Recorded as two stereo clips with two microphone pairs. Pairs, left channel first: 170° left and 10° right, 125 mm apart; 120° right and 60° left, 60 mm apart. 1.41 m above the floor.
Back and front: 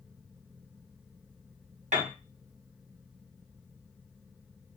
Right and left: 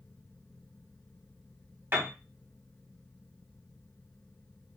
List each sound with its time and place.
1.9 s a piano: 10° left, 1.6 m